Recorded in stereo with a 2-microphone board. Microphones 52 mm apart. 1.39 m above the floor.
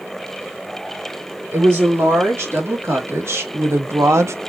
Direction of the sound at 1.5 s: 55° right (ahead or behind).